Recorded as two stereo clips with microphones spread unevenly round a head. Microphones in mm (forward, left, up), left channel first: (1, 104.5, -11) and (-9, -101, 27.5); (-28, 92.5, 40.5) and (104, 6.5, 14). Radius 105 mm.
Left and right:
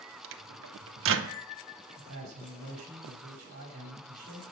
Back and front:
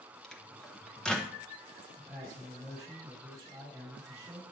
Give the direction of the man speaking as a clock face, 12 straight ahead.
4 o'clock.